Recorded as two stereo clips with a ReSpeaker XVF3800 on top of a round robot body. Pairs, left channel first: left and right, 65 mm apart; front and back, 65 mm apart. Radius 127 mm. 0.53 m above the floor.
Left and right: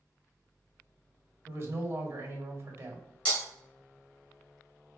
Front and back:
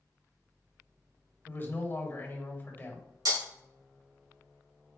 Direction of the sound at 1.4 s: 50° right.